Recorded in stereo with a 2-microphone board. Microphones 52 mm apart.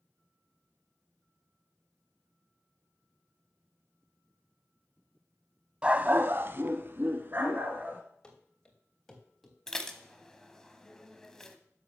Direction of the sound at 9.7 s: 10° left (ahead or behind).